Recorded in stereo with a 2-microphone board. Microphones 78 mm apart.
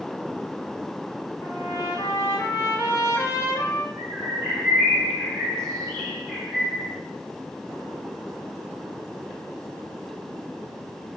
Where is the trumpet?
45° left (ahead or behind), 0.9 m.